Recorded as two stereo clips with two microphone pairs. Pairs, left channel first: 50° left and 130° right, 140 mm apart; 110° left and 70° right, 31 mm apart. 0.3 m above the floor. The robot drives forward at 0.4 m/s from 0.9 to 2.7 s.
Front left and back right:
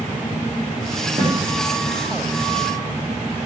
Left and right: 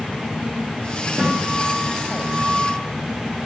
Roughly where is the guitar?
Right.